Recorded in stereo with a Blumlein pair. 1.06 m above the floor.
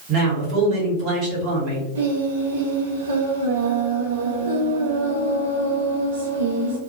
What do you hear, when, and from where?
0.1 s a man speaking: 40° right, 1.4 m
1.9 s singing: 65° right, 0.6 m